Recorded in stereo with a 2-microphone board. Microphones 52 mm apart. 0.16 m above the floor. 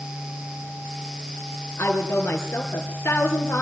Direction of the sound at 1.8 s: 55° left (ahead or behind).